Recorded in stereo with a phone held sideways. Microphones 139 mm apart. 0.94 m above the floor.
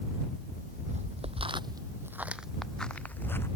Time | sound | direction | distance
0.5 | footsteps | 60° right (ahead or behind) | ?